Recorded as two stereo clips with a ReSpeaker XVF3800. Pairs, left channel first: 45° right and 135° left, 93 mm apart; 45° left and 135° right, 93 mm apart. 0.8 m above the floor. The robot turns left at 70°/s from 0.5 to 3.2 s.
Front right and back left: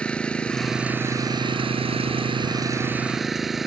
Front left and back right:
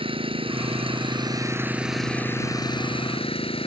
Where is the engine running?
125° right; by 3.7 s 45° left.